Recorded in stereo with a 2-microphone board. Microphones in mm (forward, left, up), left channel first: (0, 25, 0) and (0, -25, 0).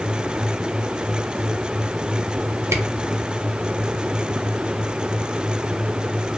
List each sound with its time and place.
2.7 s a camera shutter: 75° right (ahead or behind), 0.6 m